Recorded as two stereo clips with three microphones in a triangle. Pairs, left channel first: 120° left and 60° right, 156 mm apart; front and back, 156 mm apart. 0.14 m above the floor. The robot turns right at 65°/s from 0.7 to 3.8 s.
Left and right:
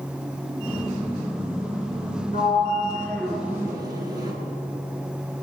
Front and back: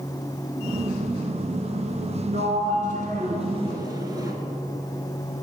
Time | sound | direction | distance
2.3 | a sliding door | 145° left | 1.7 m